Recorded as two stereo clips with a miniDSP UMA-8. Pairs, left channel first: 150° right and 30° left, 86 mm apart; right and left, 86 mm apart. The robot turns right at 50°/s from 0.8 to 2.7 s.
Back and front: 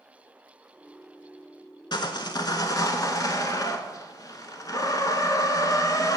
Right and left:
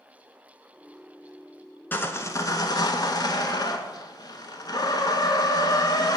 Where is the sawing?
155° right, 0.6 m; by 6.2 s 115° right, 0.6 m.